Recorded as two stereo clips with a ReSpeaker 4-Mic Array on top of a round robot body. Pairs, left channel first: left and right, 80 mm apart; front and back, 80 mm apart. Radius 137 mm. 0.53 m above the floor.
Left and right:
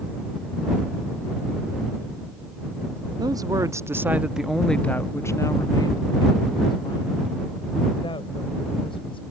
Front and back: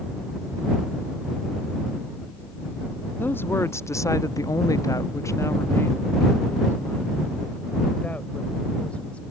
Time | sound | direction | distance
3.2 | a woman speaking | 60° right | ?